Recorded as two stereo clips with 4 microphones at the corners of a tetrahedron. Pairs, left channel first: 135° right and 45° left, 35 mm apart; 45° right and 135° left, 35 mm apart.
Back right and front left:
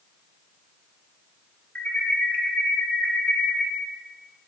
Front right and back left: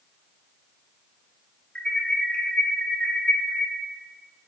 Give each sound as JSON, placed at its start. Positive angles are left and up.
{"t": 1.8, "sound": "an alarm", "azimuth_deg": -100, "distance_m": 1.9}